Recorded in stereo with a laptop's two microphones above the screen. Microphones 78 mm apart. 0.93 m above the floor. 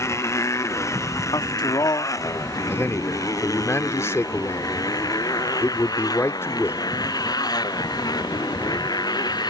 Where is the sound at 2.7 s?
35° left (ahead or behind).